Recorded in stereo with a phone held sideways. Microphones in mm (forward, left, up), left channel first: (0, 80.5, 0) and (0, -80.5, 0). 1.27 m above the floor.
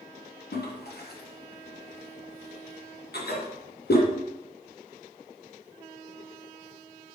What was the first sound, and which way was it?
A toilet flushing, 80° left.